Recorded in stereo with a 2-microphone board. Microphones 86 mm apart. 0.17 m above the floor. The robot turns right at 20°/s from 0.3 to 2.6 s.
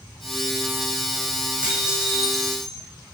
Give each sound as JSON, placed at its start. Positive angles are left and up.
{"t": 1.6, "sound": "dishes clattering", "side_deg": -15, "distance_m": 7.5}